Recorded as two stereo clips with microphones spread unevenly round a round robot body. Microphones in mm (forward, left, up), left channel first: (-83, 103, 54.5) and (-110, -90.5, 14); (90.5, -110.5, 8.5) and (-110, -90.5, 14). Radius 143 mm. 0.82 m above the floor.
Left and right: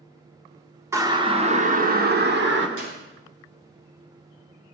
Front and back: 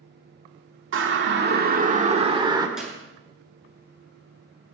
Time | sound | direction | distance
0.9 | a siren | 170° right | 2 m
2.8 | a clap | 100° right | 9 m